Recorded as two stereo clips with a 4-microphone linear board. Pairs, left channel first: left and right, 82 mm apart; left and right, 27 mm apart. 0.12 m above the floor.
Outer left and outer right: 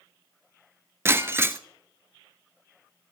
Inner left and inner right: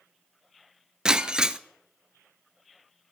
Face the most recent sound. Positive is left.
turn(degrees=-30)  # may be behind; listen again after turning